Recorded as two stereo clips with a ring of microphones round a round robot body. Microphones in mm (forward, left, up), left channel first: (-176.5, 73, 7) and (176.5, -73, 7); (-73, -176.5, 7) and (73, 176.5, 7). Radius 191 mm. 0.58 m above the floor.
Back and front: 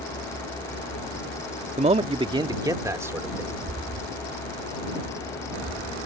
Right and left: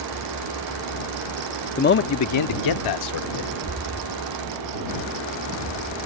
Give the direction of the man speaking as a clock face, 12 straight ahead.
2 o'clock.